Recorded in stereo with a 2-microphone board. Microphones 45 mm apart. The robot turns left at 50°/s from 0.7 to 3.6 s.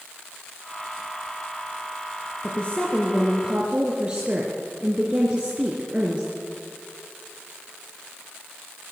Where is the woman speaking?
35° left, 3.5 m; by 6.3 s 20° right, 3.5 m.